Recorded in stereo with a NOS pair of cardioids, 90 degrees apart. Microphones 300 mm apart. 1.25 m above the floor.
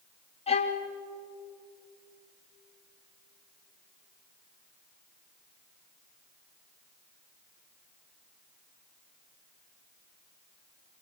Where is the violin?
20° left, 3 m.